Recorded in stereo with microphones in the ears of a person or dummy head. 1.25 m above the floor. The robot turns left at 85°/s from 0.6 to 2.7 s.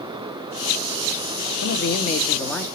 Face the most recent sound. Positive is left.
turn(degrees=-10)